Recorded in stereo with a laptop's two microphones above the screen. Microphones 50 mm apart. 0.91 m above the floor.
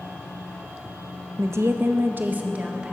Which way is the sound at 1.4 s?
60° right (ahead or behind).